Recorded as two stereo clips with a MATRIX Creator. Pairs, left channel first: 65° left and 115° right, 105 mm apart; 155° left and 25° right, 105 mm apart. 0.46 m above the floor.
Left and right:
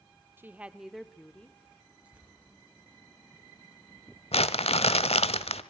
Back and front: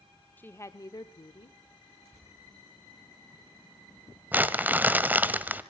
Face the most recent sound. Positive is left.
turn(degrees=50)